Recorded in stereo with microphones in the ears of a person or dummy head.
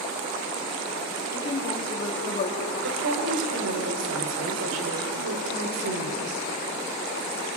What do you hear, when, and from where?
1.3 s a woman speaking: 20° left (ahead or behind), 3 m; by 2.7 s 35° left (ahead or behind), 3 m
2.8 s a woman speaking: 80° right, 3.5 m